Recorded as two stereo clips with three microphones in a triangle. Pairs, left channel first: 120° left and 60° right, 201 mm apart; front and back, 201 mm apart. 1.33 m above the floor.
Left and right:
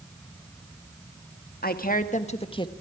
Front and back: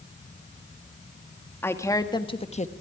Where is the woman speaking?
80° left, 1.9 m; by 2.7 s 50° left, 1.4 m.